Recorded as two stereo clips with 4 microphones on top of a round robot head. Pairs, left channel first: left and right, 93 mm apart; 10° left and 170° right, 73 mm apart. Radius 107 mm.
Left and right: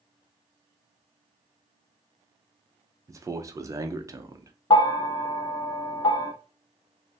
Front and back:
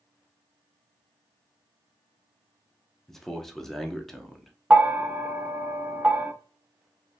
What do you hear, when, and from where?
3.1 s a man speaking: 70° right, 0.6 m
4.7 s a bell: 120° left, 0.6 m